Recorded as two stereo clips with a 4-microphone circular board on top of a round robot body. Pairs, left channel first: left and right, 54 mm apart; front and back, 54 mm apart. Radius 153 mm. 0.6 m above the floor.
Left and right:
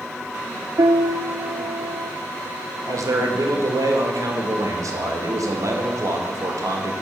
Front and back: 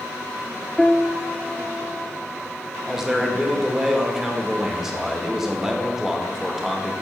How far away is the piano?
About 0.5 m.